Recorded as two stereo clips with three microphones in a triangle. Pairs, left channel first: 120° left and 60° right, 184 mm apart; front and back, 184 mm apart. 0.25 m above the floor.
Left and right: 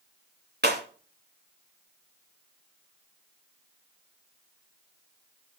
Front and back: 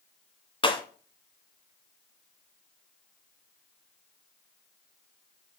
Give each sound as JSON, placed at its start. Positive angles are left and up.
{"t": 0.6, "sound": "breaking glass", "azimuth_deg": -60, "distance_m": 1.7}